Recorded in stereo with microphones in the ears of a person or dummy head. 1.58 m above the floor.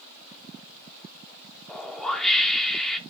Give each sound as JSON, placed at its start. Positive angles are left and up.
{"t": 1.7, "sound": "a whoosh", "side_deg": 5, "distance_m": 0.8}